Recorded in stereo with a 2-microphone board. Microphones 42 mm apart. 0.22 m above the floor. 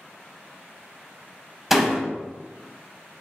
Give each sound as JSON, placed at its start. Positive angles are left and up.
{"t": 1.7, "sound": "a door slam", "side_deg": -5, "distance_m": 0.7}